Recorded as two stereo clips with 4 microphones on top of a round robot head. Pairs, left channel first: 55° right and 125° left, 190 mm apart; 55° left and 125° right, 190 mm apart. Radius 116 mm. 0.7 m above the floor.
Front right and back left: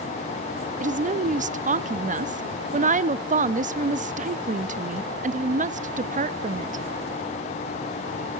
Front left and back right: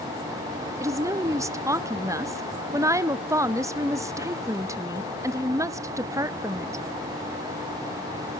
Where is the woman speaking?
165° left, 0.8 m.